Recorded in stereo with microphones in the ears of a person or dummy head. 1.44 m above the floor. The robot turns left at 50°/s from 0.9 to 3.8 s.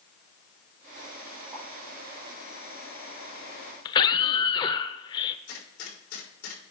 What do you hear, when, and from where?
1.5 s a pop: 35° right (ahead or behind), 5 m; by 1.6 s 30° right (ahead or behind), 5 m
3.9 s a scream: 25° left (ahead or behind), 0.7 m
5.5 s a gunshot: 80° left, 4 m